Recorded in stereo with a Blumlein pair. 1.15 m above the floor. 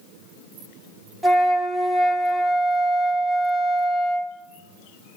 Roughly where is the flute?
Ahead.